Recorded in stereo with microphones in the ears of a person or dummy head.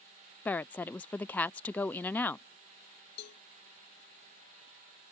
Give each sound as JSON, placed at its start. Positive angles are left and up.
{"t": 0.5, "sound": "a woman speaking", "side_deg": 15}
{"t": 3.2, "sound": "a cowbell", "side_deg": 65}